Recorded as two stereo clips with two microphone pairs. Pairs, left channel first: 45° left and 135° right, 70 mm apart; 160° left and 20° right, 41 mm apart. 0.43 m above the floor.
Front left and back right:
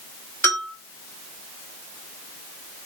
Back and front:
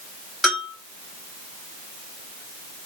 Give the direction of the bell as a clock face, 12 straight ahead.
10 o'clock.